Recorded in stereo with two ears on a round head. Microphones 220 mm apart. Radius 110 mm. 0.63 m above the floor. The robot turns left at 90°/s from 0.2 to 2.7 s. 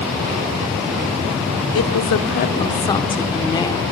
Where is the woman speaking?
105° left, 1.8 m; by 3.8 s 15° left, 1.8 m.